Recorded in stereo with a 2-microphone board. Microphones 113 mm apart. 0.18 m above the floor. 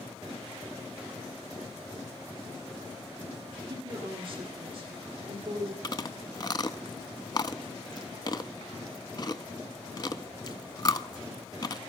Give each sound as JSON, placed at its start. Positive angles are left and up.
{"t": 3.7, "sound": "a woman speaking", "side_deg": -45, "distance_m": 4.0}
{"t": 5.8, "sound": "chewing", "side_deg": 40, "distance_m": 0.5}